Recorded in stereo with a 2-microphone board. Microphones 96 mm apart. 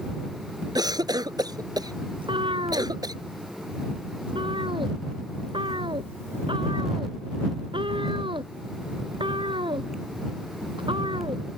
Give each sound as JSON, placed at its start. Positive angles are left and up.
{"t": 0.8, "sound": "a cough", "side_deg": -40}
{"t": 2.2, "sound": "a cat meowing", "side_deg": -60}